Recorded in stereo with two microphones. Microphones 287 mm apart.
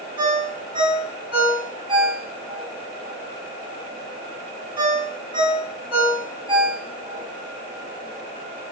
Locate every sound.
0.2 s a ringtone: 15° right (ahead or behind), 1.7 m